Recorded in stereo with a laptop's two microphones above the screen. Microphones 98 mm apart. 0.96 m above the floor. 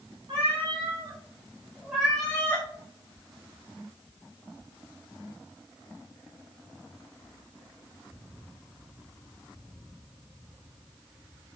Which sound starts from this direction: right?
A cat meowing, at 0.3 s.